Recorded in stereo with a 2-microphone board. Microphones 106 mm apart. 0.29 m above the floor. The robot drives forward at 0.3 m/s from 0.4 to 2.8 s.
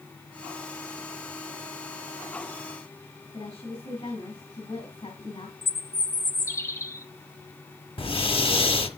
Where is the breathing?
65° left (ahead or behind), 1.2 m.